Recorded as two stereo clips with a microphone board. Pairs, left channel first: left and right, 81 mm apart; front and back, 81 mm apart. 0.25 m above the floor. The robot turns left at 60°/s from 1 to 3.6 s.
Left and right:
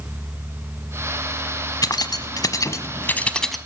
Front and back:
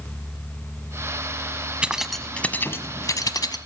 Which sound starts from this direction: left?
Keys jangling, at 1.8 s.